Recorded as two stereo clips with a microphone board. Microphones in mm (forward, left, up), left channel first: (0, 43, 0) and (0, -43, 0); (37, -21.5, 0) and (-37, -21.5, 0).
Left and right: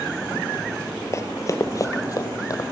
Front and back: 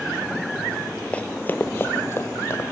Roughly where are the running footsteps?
Ahead left.